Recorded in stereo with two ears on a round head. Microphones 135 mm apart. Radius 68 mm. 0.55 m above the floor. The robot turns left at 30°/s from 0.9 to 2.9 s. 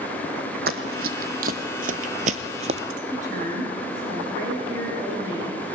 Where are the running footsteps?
75° right (ahead or behind), 1.8 m; by 2.8 s 45° right (ahead or behind), 1.0 m.